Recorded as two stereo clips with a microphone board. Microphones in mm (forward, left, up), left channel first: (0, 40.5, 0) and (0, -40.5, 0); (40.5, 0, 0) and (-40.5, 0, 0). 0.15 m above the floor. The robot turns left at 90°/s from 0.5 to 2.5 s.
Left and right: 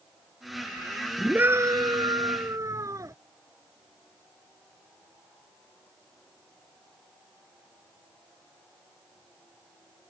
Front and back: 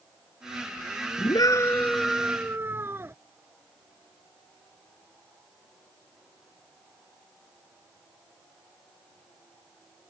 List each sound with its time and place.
1.2 s a scream: 10° right; by 3.1 s 125° right